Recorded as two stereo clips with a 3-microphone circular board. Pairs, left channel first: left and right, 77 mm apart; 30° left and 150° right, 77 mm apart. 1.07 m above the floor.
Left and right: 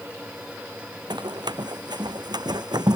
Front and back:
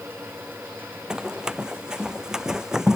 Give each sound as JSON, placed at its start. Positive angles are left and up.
{"t": 1.1, "sound": "running footsteps", "azimuth_deg": -70}